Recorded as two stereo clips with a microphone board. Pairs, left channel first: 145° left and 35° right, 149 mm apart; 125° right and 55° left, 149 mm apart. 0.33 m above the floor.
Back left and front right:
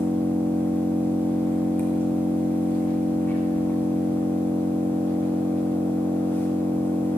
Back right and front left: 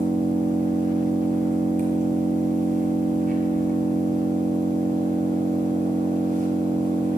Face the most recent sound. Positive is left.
turn(degrees=70)